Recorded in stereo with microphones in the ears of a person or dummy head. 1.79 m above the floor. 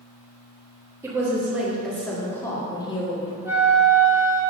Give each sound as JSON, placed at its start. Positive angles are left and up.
{"t": 1.0, "sound": "a woman speaking", "side_deg": -10, "distance_m": 2.0}
{"t": 3.5, "sound": "a flute", "side_deg": -5, "distance_m": 1.4}